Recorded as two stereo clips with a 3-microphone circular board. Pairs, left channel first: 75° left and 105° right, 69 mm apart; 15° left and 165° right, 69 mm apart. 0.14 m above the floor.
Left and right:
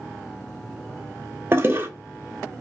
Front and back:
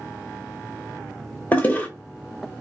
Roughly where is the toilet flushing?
Ahead right.